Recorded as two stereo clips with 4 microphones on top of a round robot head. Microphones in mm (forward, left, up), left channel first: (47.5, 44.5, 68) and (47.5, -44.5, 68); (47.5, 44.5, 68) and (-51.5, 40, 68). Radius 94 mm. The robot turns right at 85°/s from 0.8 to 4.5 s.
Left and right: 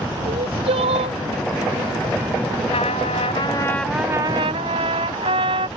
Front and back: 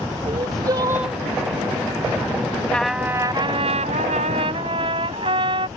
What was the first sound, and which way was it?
Crying, 115° right.